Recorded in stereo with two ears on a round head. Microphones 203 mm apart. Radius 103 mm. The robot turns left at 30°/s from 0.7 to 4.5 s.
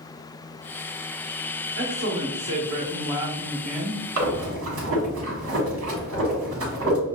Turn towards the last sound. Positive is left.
turn(degrees=-65)  # may be behind; listen again after turning